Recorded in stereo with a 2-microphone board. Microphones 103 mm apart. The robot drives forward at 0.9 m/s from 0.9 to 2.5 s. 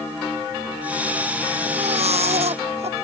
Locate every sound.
1.6 s a baby crying: 80° right